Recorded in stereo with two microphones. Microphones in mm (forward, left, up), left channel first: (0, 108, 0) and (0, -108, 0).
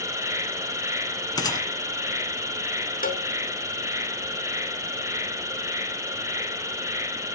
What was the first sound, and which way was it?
An insect, 15° right (ahead or behind).